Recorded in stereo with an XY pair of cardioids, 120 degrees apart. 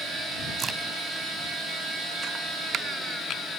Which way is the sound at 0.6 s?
35° right.